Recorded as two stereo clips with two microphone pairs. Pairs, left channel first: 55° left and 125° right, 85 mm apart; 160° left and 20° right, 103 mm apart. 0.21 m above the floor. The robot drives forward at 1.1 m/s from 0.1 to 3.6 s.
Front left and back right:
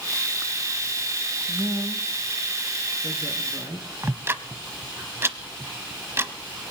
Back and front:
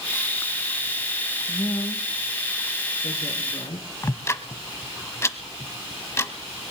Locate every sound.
1.5 s a woman speaking: 150° right, 1.4 m; by 3.9 s 175° right, 3 m
4.0 s ticking: 155° right, 0.9 m